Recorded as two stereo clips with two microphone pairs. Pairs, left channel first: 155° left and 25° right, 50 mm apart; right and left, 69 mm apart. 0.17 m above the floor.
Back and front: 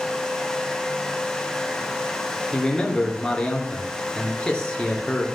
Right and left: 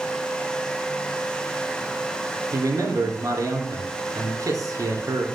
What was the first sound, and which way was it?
A man speaking, 85° left.